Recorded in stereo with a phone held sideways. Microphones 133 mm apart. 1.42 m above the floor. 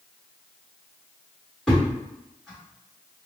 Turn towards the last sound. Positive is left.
turn(degrees=0)  # may be behind; listen again after turning